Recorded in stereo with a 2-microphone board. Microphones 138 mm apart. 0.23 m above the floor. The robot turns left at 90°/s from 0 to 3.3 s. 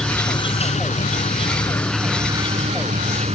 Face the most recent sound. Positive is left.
turn(degrees=-120)